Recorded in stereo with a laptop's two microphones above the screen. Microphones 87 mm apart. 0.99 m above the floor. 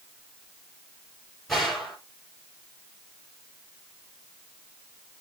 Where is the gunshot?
Centre (ahead or behind), 3.5 m.